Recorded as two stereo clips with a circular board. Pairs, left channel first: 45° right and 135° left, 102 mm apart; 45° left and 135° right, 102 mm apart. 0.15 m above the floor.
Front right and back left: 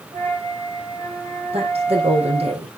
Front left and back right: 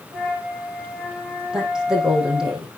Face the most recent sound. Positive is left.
turn(degrees=140)